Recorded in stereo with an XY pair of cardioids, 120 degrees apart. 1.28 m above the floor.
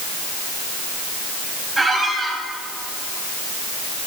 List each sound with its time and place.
1.8 s a squeak: 15° right, 4 m